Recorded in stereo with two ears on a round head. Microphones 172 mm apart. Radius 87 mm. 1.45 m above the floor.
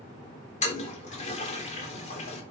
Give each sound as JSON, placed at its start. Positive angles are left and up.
{"t": 0.6, "sound": "a toilet flushing", "side_deg": 40, "distance_m": 3.5}